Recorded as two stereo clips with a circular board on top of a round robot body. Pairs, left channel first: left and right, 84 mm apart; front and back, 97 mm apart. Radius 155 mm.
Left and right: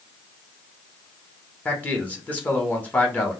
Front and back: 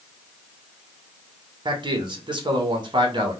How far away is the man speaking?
About 1.0 m.